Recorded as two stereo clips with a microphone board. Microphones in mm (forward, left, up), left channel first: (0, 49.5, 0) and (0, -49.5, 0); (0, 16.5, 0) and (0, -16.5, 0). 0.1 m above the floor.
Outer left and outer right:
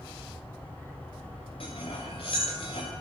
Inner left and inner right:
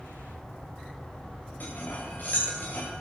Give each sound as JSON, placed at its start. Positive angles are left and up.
{"t": 1.6, "sound": "cutlery clinking", "side_deg": 65, "distance_m": 8.0}